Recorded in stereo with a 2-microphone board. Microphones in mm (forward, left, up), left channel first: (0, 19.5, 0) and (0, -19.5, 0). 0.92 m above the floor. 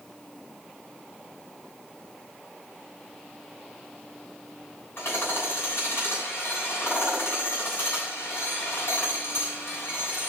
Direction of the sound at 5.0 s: 75° left (ahead or behind).